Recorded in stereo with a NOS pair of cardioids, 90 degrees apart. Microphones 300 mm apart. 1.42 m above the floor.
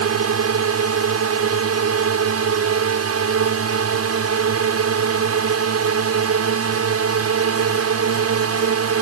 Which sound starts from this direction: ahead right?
A drone, at 0.0 s.